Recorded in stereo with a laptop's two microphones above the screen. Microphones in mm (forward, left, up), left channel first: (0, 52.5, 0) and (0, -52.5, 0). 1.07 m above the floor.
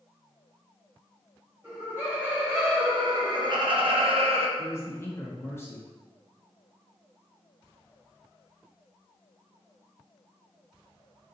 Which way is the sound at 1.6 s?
25° right (ahead or behind).